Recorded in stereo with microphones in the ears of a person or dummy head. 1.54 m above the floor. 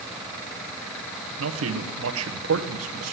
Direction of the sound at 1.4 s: 75° right (ahead or behind).